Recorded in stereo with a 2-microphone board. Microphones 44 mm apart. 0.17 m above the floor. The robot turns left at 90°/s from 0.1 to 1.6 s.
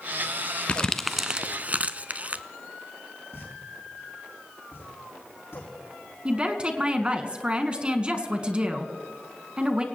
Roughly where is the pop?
Left.